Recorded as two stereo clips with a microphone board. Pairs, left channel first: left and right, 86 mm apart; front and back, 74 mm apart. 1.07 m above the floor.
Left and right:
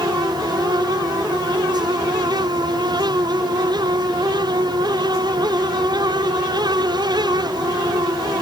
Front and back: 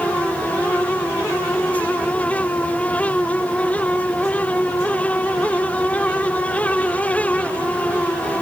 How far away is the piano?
No piano in this recording.